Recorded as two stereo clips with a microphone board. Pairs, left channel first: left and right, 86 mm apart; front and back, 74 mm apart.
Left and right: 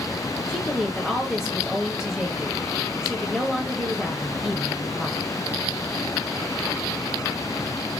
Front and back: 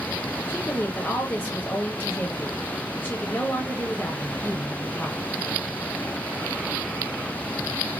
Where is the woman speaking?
10° right, 1.2 m.